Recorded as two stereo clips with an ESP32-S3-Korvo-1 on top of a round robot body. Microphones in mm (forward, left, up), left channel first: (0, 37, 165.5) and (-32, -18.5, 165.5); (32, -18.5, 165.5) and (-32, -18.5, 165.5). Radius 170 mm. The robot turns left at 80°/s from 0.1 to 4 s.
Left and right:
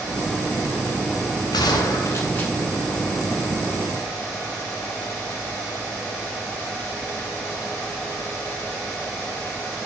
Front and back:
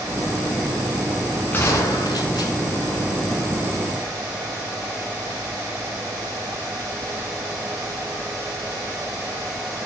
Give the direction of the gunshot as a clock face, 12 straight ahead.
10 o'clock.